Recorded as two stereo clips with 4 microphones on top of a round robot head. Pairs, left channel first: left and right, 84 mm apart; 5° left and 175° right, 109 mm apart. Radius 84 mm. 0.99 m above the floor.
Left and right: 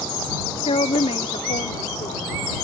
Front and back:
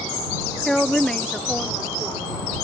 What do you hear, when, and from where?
0.7 s a woman speaking: 90° left